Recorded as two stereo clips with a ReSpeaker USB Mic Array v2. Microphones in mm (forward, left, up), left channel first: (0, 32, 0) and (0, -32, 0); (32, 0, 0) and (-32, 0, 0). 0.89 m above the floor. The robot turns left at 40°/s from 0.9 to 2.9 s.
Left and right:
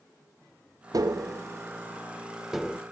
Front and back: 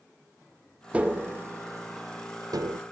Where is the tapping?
110° right, 0.6 m; by 2.8 s 175° left, 0.6 m.